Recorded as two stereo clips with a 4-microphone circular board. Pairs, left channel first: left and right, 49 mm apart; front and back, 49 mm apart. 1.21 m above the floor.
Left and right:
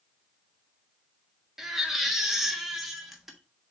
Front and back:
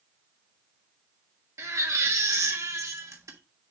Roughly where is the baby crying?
Behind.